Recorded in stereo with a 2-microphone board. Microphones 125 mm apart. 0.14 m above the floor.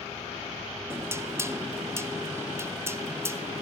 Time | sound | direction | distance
0.9 | knocking | 20° right (ahead or behind) | 0.9 m